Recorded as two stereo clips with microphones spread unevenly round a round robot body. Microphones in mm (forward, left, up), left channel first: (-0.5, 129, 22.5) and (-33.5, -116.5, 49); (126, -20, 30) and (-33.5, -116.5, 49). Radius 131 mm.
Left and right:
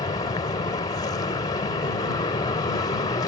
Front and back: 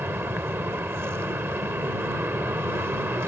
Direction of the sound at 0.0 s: 130° left.